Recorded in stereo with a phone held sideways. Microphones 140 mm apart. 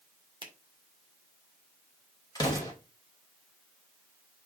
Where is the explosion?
30° left (ahead or behind), 3 m.